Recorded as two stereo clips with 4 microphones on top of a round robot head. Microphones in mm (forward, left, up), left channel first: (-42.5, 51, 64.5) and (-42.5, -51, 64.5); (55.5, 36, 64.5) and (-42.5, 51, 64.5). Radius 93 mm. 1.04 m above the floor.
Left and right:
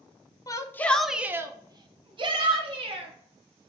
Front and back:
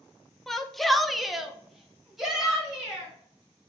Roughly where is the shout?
Left.